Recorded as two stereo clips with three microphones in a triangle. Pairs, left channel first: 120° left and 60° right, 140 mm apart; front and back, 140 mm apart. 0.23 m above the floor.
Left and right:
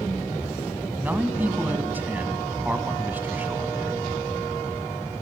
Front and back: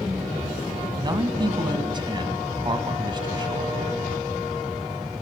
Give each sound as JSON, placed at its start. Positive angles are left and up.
{"t": 1.0, "sound": "a man speaking", "azimuth_deg": -135, "distance_m": 1.6}